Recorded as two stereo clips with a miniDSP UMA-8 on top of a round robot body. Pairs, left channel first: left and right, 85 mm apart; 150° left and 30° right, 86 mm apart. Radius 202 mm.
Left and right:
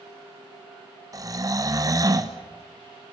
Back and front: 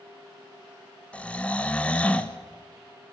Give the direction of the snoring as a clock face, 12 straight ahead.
4 o'clock.